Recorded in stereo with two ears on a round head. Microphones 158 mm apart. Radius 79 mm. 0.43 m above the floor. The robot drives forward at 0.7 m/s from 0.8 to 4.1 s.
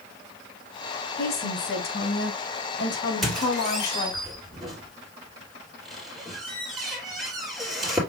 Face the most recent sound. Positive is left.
turn(degrees=0)  # may be behind; listen again after turning